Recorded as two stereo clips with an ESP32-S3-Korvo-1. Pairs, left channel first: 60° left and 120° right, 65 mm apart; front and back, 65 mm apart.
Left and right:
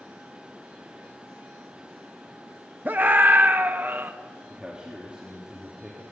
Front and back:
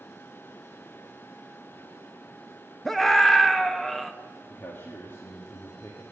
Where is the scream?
90° right, 0.8 m.